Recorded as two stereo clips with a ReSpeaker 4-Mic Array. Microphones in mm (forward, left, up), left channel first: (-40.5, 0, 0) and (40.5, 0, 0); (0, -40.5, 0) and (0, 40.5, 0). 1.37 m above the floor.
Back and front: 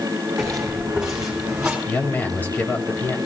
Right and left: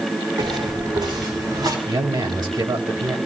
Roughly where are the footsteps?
Left.